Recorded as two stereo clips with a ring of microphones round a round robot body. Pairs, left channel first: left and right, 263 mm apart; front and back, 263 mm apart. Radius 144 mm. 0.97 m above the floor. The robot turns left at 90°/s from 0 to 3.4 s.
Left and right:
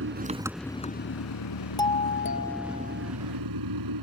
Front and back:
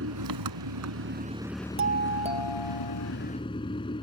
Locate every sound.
0.0 s an engine running: 130° right; by 4.0 s 75° right
1.8 s a doorbell: 165° left; by 3.1 s 45° left